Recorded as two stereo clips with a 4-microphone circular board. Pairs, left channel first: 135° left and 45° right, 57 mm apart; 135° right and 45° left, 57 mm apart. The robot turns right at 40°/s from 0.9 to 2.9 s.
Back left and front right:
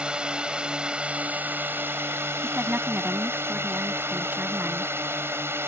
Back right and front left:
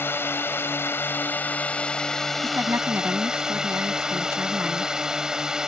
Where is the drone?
110° right; by 5.7 s 30° right.